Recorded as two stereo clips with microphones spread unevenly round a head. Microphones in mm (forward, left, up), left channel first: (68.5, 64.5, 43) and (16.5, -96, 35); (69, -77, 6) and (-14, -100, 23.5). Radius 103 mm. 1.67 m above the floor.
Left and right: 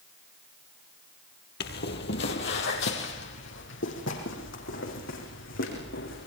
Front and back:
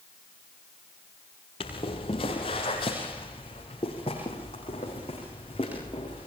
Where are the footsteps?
65° left, 3 m; by 6.3 s 85° left, 8 m.